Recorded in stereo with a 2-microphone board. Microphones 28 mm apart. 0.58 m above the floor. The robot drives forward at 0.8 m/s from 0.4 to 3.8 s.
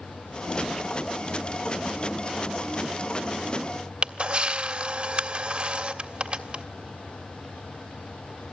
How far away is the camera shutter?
About 1.8 m.